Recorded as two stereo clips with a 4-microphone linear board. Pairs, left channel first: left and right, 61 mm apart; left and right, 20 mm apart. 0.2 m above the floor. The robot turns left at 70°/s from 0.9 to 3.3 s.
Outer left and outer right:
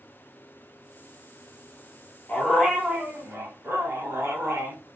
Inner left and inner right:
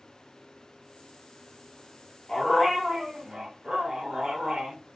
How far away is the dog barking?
About 1.3 m.